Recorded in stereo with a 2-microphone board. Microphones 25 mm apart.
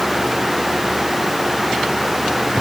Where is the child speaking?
I don't hear a child speaking.